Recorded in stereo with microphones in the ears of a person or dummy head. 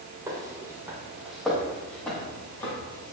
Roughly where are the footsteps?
Centre.